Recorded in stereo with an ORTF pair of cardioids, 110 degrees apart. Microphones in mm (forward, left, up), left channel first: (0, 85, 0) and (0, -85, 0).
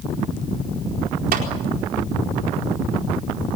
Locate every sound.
1.3 s a clap: 65° right, 4.5 m